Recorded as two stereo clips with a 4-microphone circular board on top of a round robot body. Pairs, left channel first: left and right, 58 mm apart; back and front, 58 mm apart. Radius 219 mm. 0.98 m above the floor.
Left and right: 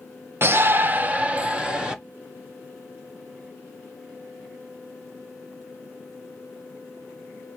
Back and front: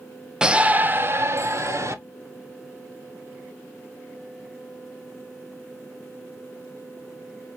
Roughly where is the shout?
Right.